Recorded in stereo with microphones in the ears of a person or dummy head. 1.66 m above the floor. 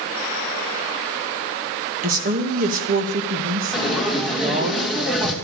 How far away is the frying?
About 2.5 m.